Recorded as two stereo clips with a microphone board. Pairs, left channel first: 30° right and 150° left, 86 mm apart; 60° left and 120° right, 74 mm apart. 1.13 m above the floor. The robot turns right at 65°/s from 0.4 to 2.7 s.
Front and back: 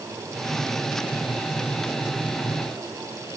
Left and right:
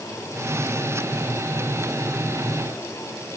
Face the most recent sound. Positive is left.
No sound to turn to.